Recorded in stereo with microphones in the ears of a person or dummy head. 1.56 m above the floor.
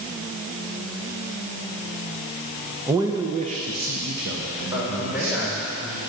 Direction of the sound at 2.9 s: 10° right (ahead or behind).